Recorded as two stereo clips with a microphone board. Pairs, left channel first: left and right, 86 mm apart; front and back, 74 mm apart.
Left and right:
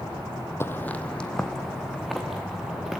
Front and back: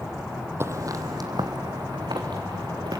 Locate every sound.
0.6 s footsteps: 140° left, 0.9 m; by 3.0 s 175° right, 3.5 m